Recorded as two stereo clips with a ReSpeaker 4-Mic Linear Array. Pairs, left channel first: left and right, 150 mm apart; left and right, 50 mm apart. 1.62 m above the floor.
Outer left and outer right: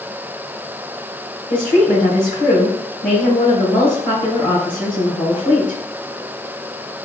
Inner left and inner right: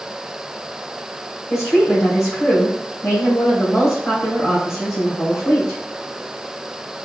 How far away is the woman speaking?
About 1.9 m.